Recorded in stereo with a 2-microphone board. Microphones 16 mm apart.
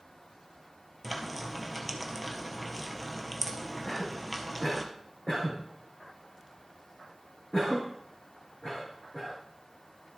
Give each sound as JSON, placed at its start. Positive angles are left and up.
{"t": 1.0, "sound": "frying", "side_deg": 10, "distance_m": 1.4}
{"t": 3.9, "sound": "a cough", "side_deg": 45, "distance_m": 4.5}